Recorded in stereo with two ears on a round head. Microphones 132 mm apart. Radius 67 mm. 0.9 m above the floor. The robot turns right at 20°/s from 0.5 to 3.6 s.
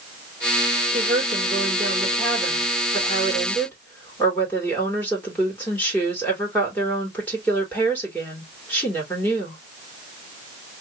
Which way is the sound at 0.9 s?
40° right.